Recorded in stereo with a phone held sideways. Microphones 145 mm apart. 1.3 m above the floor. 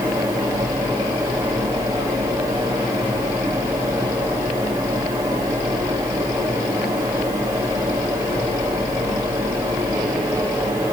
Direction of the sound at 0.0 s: 25° right (ahead or behind).